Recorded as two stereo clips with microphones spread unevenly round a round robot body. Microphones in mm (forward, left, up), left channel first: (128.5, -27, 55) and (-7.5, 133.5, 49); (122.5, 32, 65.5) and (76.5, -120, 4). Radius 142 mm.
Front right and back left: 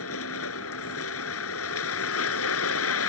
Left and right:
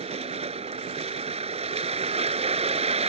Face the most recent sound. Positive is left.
turn(degrees=-55)